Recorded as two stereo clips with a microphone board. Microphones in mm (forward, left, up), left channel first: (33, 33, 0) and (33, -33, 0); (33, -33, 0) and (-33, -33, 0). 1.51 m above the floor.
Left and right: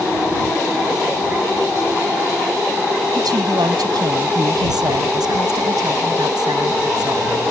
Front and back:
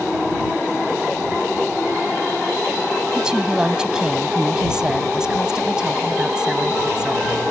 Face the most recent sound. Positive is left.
turn(degrees=-100)